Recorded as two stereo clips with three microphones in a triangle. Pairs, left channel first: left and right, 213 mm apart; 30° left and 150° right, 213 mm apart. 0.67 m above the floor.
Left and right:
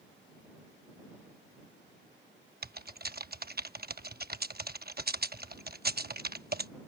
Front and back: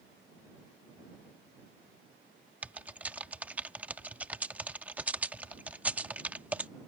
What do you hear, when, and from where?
2.6 s typing on a keyboard: 70° right